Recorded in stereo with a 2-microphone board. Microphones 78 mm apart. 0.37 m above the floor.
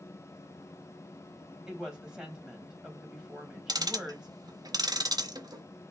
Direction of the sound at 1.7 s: 10° right (ahead or behind).